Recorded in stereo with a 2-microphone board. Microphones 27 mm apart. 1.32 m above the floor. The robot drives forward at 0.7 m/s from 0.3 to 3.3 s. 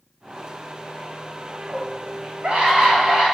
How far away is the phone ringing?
I don't hear a phone ringing.